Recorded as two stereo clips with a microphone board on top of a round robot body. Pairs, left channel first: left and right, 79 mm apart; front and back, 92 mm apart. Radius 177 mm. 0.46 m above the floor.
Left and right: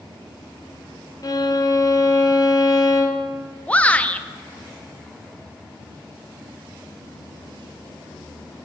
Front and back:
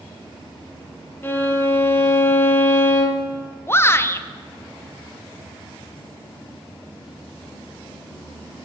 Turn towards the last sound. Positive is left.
turn(degrees=35)